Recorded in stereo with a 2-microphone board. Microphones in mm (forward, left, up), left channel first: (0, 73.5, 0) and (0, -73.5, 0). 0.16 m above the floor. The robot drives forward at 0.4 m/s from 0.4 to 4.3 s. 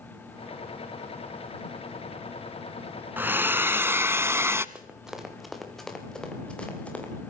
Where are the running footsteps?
5° right (ahead or behind), 4.5 m; by 7.1 s 10° left (ahead or behind), 6.5 m.